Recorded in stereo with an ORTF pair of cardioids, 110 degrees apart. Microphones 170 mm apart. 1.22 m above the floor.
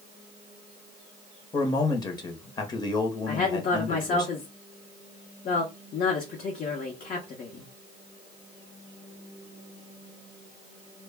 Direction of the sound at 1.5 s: 25° left.